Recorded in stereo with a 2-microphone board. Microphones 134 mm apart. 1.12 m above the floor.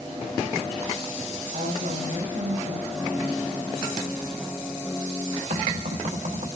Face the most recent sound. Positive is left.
turn(degrees=-75)  # may be behind; listen again after turning